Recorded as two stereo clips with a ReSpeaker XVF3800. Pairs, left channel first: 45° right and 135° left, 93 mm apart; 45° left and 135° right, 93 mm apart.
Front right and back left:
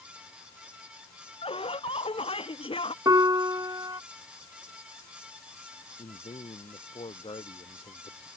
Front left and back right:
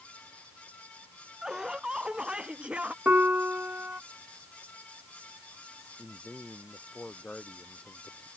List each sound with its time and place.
1.4 s laughter: 50° right; by 3.0 s 60° right
3.0 s a piano: 160° left
6.0 s a man speaking: 35° right